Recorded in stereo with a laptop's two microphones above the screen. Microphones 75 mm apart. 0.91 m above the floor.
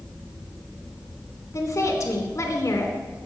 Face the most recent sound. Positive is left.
turn(degrees=45)  # may be behind; listen again after turning